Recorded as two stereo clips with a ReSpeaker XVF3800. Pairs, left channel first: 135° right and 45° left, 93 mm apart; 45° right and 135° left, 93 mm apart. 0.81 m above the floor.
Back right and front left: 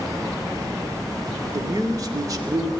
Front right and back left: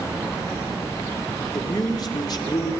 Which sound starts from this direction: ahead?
A man speaking, at 1.5 s.